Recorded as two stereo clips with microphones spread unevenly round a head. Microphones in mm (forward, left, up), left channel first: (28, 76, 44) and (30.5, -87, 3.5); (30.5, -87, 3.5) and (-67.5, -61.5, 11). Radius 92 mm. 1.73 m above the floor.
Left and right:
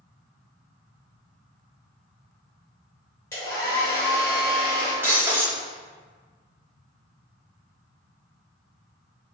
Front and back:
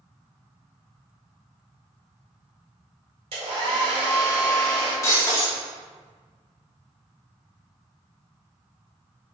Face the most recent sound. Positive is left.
turn(degrees=0)